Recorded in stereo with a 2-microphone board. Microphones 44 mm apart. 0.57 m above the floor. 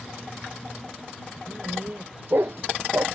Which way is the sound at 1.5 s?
40° right (ahead or behind).